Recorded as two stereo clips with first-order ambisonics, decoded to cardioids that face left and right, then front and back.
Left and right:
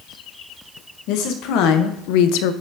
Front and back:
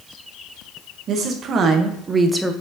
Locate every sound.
1.1 s a woman speaking: 120° left, 1.4 m; by 2.5 s 85° left, 0.6 m